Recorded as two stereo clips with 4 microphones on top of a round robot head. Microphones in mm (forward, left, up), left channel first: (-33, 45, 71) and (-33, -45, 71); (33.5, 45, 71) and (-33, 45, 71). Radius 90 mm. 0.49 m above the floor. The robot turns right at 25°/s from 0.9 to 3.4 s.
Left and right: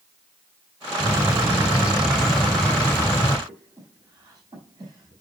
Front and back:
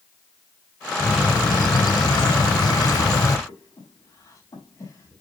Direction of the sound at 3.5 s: 45° right.